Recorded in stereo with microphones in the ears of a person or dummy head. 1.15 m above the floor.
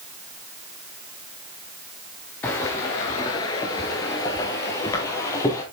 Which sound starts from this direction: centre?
Footsteps, at 2.4 s.